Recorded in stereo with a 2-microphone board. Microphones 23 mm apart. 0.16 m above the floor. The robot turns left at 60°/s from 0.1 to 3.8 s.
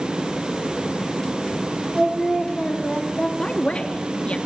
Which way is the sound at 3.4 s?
45° left (ahead or behind).